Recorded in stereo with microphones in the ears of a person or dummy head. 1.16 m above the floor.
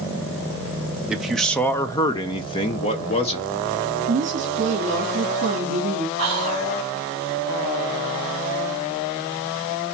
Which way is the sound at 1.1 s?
5° right (ahead or behind).